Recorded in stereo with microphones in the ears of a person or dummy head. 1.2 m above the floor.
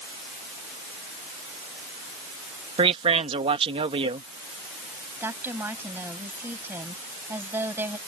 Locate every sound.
2.8 s a man speaking: 35° right (ahead or behind)
5.2 s a woman speaking: 15° right (ahead or behind)